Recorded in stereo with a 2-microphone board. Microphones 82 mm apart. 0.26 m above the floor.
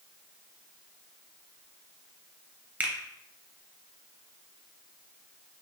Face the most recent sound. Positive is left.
turn(degrees=-20)  # may be behind; listen again after turning